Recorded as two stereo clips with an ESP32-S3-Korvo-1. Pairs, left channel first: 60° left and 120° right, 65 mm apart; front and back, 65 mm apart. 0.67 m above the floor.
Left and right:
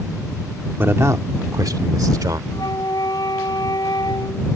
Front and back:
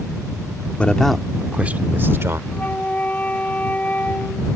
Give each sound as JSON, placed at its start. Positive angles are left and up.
{"t": 0.8, "sound": "a man speaking", "azimuth_deg": -70}
{"t": 2.5, "sound": "a flute", "azimuth_deg": 65}